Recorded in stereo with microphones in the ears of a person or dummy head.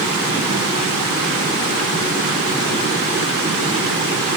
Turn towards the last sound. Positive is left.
No sound to turn to.